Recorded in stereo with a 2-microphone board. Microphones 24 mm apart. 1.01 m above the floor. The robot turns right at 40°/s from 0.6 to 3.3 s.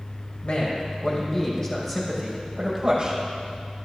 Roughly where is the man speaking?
Behind left.